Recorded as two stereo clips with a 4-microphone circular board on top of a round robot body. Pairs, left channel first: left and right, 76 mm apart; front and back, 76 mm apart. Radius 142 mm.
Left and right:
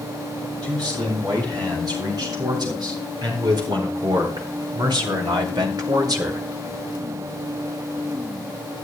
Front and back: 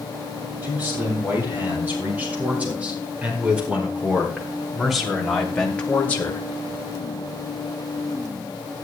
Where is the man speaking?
115° right, 7.5 m; by 6.4 s 55° right, 1.9 m.